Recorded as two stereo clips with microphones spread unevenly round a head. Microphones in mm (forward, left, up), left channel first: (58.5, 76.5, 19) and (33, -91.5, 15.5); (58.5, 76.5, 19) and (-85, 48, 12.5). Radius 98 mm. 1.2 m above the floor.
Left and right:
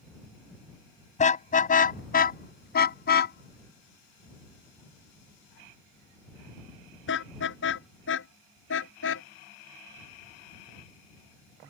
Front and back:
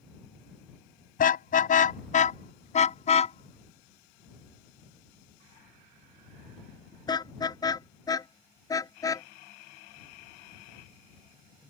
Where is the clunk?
No clunk in this recording.